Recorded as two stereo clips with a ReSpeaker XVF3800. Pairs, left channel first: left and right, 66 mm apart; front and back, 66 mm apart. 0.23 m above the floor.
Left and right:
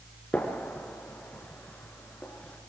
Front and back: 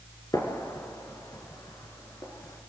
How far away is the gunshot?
About 4 m.